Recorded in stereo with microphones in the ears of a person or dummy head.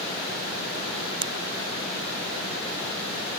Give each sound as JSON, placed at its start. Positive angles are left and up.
{"t": 1.2, "sound": "a pop", "side_deg": -35}